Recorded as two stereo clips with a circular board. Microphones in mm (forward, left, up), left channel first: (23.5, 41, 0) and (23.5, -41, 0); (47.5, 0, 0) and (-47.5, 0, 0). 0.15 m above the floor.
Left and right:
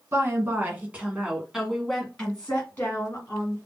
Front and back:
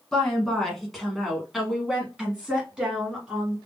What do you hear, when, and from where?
0.1 s a woman speaking: 80° right, 1.6 m; by 3.6 s 110° left, 1.7 m